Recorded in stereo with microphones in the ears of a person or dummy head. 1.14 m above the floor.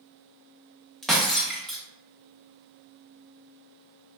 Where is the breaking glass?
Centre (ahead or behind), 0.6 m.